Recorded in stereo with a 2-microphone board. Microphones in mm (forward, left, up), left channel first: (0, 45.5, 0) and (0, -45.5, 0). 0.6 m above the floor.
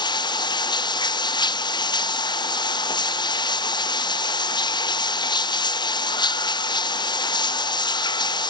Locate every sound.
0.0 s running water: 55° left (ahead or behind)